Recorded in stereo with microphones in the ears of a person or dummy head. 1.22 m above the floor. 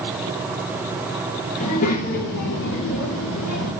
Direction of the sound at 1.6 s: 35° left (ahead or behind).